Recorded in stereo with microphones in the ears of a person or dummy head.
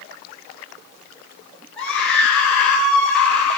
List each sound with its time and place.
1.8 s a scream: centre (ahead or behind), 9 m